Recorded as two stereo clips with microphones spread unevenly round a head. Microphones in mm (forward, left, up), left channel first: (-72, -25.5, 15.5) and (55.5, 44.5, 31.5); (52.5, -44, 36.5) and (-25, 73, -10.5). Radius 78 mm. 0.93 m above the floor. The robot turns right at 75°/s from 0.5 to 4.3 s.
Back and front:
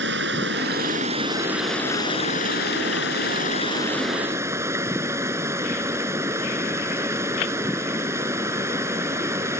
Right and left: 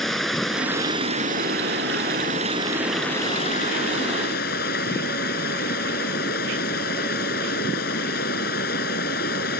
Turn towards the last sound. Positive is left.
turn(degrees=-45)